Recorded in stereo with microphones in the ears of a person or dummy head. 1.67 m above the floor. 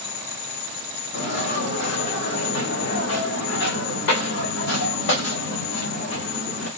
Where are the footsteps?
75° left (ahead or behind), 5.5 m.